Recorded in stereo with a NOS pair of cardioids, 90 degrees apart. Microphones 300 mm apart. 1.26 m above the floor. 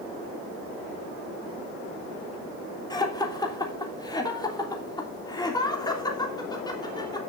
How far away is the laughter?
About 3 m.